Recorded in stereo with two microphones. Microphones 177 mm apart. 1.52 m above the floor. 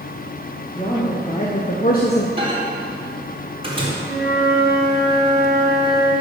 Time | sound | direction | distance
0.8 | a woman speaking | 30° left (ahead or behind) | 2 m
2.4 | a microwave | 30° right (ahead or behind) | 3.5 m
4.0 | a flute | 60° left (ahead or behind) | 3 m